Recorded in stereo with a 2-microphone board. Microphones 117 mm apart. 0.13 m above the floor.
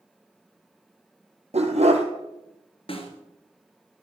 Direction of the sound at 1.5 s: 70° right (ahead or behind).